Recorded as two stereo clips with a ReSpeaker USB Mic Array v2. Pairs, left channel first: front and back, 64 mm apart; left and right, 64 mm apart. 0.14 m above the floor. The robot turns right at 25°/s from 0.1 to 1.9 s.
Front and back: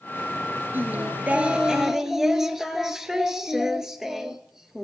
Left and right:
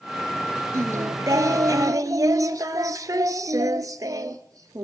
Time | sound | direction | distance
0.7 | singing | 125° right | 0.6 m